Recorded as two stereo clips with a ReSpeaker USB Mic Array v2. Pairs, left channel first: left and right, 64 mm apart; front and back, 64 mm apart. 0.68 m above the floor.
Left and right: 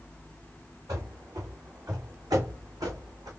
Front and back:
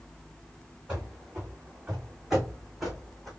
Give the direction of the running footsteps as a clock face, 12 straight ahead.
4 o'clock.